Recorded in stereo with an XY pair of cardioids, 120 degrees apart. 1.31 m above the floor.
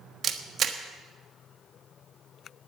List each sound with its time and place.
0.2 s a camera shutter: 50° right, 1.4 m